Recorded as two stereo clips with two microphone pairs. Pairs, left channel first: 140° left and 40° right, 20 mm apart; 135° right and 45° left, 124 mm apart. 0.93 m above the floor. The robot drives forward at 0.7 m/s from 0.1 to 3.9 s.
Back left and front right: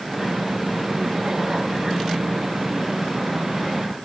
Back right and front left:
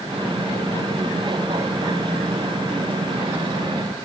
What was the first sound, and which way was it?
Only background noise.